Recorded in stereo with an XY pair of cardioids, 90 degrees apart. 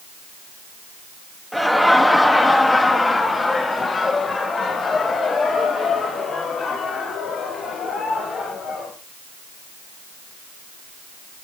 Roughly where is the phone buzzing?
No phone buzzing in this recording.